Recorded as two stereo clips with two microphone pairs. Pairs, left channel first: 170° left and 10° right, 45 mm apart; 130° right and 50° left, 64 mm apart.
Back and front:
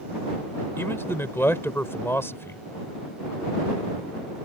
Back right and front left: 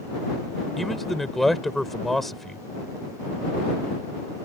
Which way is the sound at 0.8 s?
145° left.